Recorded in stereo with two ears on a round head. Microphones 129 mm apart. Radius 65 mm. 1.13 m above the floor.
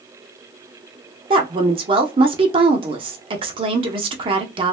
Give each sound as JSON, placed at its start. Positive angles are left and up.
{"t": 1.3, "sound": "a woman speaking", "side_deg": -35, "distance_m": 0.7}